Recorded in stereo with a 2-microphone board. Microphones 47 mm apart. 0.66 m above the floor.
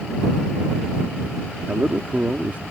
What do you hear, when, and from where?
1.7 s a man speaking: 30° right (ahead or behind)